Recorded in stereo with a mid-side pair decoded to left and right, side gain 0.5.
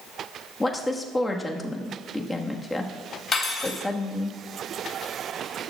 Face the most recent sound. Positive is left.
turn(degrees=35)